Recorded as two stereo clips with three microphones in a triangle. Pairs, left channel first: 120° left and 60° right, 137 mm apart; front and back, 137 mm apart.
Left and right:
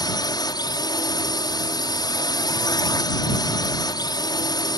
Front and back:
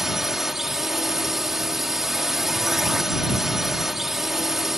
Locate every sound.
0.0 s a drone: 95° left